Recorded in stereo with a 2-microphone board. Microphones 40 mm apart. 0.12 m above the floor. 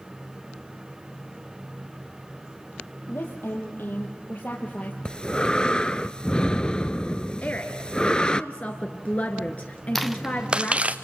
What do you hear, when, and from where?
3.1 s a woman speaking: 70° left (ahead or behind), 3.5 m; by 5.0 s 40° left (ahead or behind), 3 m
5.0 s breathing: 25° left (ahead or behind), 0.5 m
7.4 s a woman speaking: 40° left (ahead or behind), 1.4 m
9.9 s footsteps: 10° left (ahead or behind), 0.8 m; by 10.9 s 35° right (ahead or behind), 1.5 m